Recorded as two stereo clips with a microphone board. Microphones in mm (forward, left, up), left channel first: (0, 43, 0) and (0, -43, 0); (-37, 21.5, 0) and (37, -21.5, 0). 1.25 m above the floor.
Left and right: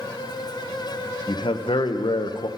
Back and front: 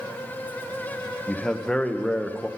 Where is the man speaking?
70° left, 0.7 m.